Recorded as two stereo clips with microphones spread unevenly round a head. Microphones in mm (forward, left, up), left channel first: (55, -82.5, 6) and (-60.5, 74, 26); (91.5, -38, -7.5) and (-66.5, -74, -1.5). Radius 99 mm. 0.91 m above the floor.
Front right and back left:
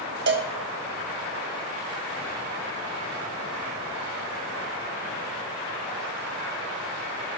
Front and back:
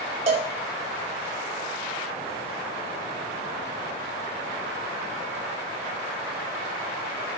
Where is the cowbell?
140° left, 0.9 m.